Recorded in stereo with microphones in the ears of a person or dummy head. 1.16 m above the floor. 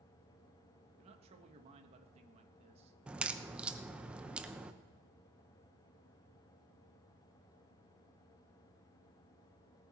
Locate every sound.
1.0 s a man speaking: 35° right (ahead or behind), 1.5 m
3.1 s a crack: 5° right (ahead or behind), 0.7 m